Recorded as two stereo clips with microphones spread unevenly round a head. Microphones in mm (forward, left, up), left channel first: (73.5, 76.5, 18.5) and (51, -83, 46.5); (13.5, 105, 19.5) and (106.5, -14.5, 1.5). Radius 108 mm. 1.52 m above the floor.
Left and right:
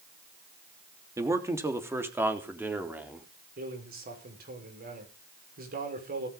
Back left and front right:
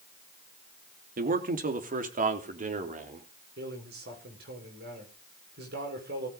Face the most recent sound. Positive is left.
turn(degrees=-75)